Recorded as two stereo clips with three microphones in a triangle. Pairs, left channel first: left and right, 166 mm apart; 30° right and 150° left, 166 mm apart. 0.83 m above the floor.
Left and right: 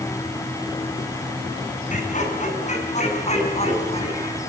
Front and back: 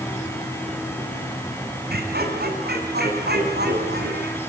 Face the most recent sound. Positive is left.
turn(degrees=140)